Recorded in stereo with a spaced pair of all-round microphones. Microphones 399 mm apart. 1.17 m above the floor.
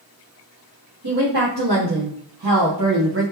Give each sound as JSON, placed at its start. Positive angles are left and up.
{"t": 1.0, "sound": "a woman speaking", "side_deg": -65, "distance_m": 1.7}